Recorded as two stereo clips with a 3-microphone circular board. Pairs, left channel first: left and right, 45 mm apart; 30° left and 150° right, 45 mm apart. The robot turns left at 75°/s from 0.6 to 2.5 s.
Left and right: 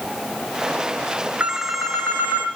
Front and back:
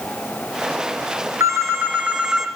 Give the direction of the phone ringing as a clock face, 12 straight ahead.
5 o'clock.